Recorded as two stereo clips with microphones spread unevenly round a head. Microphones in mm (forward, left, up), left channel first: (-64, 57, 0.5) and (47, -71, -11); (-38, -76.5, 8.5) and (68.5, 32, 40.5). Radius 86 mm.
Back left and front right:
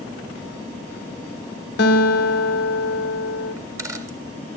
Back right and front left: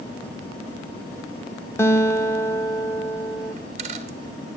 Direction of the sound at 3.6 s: 25° left.